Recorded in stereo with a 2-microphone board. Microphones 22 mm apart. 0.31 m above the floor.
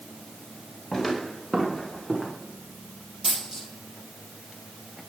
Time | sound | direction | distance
0.9 | footsteps | centre (ahead or behind) | 3 m
3.2 | a dropped coin | 25° right (ahead or behind) | 3 m